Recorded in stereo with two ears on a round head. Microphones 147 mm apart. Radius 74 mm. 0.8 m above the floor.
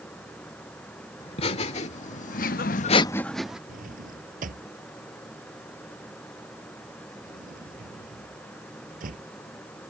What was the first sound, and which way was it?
Laughter, 35° left (ahead or behind).